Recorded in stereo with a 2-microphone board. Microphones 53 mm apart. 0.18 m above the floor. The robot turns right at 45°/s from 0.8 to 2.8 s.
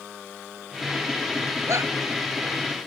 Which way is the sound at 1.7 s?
70° right (ahead or behind).